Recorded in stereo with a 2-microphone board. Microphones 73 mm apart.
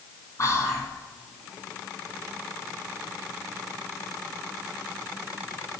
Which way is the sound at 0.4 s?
45° left (ahead or behind).